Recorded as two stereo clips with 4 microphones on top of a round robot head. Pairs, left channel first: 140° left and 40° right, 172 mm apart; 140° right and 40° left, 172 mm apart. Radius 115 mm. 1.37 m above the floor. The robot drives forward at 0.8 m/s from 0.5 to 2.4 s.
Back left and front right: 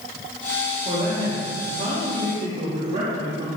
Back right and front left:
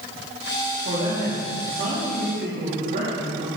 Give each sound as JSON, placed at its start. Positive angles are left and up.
{"t": 0.8, "sound": "a man speaking", "azimuth_deg": 0, "distance_m": 4.5}